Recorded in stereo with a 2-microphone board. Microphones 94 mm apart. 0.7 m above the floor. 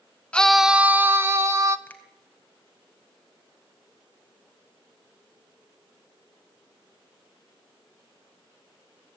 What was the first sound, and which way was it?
A scream, 10° left (ahead or behind).